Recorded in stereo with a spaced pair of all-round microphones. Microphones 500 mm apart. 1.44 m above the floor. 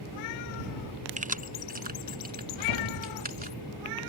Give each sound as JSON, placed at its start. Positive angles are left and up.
{"t": 1.2, "sound": "keys jangling", "side_deg": -15}
{"t": 2.5, "sound": "a whoosh", "side_deg": 65}